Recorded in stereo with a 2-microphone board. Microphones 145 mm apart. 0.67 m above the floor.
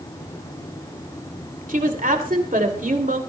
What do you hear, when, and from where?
1.7 s a woman speaking: 65° right (ahead or behind), 2.5 m